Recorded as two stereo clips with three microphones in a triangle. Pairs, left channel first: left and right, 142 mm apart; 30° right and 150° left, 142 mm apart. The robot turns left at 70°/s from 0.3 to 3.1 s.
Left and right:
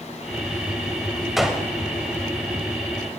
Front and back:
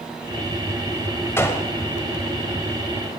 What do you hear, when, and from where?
1.4 s a gunshot: 5° right, 1.4 m; by 1.7 s 25° right, 1.4 m